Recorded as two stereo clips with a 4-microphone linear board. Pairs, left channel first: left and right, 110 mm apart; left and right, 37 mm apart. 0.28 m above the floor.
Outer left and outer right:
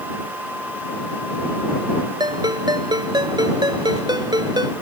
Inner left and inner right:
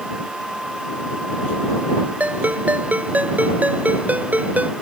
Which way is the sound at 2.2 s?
40° right (ahead or behind).